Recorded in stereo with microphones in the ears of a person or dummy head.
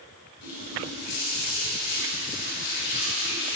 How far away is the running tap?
About 3.5 m.